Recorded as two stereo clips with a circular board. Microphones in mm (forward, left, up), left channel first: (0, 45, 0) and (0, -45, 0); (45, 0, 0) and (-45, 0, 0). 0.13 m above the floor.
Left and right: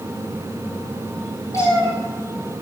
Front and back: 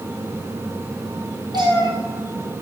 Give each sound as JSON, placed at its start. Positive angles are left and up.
{"t": 1.5, "sound": "a cat meowing", "azimuth_deg": 145, "distance_m": 2.5}